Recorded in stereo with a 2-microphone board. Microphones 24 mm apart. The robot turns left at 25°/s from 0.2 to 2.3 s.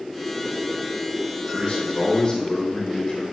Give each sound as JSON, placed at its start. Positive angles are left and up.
{"t": 1.5, "sound": "a man speaking", "side_deg": 50, "distance_m": 3.5}